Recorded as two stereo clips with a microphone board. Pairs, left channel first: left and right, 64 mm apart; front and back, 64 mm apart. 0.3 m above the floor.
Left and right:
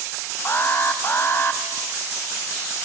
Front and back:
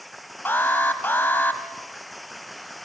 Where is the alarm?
50° left, 1.9 m.